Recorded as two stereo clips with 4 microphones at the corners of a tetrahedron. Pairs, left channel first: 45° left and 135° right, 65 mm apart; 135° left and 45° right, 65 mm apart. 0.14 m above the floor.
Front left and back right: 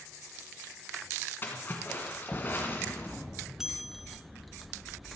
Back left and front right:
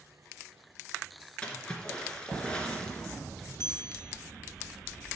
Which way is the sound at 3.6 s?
145° left.